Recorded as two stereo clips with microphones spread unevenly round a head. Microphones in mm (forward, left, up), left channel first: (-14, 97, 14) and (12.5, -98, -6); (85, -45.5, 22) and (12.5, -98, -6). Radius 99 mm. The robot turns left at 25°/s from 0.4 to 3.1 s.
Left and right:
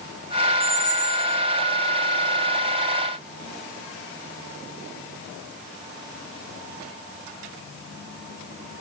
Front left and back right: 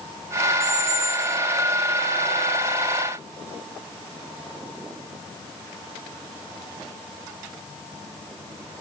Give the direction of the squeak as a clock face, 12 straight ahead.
6 o'clock.